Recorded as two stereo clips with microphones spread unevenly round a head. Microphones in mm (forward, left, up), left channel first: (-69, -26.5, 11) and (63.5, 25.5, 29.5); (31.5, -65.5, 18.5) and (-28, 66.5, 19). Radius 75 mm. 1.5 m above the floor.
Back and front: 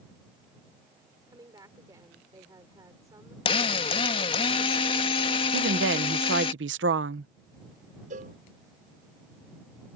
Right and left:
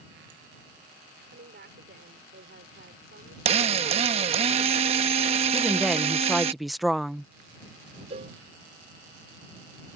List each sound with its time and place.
1.3 s a woman speaking: 90° left
3.5 s a drill: 150° left
5.5 s a woman speaking: 25° left
8.1 s a cowbell: 60° left